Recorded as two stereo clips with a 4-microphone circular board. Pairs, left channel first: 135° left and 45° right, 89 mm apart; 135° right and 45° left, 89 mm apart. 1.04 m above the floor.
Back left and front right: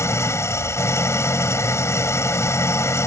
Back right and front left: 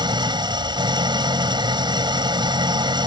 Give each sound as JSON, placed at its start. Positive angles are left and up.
{"t": 0.0, "sound": "an engine running", "azimuth_deg": 75}